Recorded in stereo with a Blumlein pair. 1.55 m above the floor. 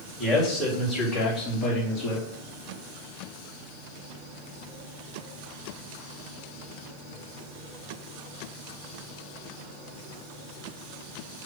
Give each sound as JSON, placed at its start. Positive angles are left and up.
{"t": 0.2, "sound": "a man speaking", "azimuth_deg": 15, "distance_m": 4.0}